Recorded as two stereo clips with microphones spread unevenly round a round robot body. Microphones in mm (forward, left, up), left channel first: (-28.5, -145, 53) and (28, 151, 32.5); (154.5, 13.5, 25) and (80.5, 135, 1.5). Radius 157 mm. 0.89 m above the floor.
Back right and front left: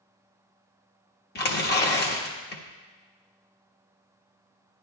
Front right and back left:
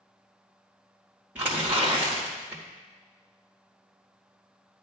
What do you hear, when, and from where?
1.4 s tearing paper: 160° right, 1.3 m